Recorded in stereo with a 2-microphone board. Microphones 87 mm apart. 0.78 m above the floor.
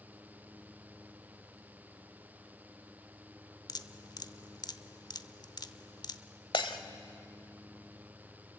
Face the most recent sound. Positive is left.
turn(degrees=70)  # may be behind; listen again after turning